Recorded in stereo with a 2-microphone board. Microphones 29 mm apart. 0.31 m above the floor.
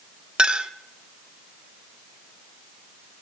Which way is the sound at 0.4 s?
30° right (ahead or behind).